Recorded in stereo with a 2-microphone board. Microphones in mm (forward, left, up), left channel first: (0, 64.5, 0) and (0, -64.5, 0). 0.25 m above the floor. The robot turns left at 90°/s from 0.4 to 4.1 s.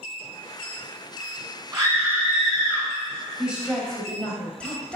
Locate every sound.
1.7 s a scream: 25° right (ahead or behind), 1.7 m; by 2.9 s 15° left (ahead or behind), 1.7 m
3.4 s a woman speaking: 10° right (ahead or behind), 1.0 m; by 5.0 s 10° left (ahead or behind), 1.0 m